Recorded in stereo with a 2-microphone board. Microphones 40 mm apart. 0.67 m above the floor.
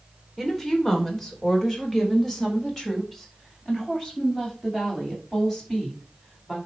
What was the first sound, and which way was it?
A woman speaking, 10° left (ahead or behind).